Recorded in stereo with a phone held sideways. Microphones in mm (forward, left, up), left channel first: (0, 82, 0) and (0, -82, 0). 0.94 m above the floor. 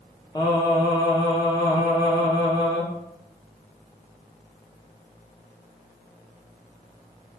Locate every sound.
0.3 s singing: 25° left (ahead or behind), 0.7 m